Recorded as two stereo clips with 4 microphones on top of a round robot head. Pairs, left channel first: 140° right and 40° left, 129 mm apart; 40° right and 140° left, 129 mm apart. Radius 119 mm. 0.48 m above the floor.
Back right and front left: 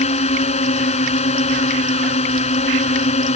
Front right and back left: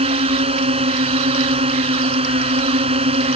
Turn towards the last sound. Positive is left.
turn(degrees=-175)